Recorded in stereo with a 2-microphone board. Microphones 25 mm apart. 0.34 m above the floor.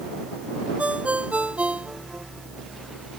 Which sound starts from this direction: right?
A ringtone, at 0.8 s.